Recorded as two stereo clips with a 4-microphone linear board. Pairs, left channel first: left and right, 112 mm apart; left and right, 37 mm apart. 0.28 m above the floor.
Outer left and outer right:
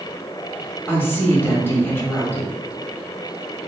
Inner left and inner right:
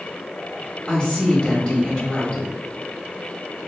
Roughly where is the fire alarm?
No fire alarm in this recording.